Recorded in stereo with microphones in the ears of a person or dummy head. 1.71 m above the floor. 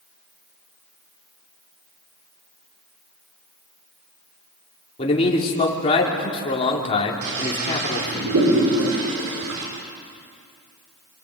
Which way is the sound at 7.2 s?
80° right.